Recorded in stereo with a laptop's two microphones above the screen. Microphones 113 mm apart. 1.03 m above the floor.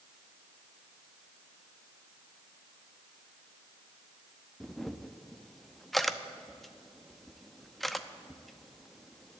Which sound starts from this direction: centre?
A camera shutter, at 4.6 s.